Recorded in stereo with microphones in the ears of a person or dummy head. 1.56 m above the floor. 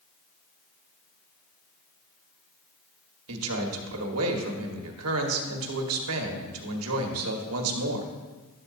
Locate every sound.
3.3 s a man speaking: 80° right, 1.4 m